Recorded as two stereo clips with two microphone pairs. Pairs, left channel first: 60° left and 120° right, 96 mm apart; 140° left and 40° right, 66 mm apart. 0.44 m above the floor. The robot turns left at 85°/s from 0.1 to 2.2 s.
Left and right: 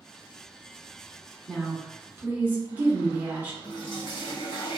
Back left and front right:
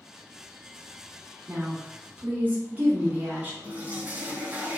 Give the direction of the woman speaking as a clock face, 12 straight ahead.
12 o'clock.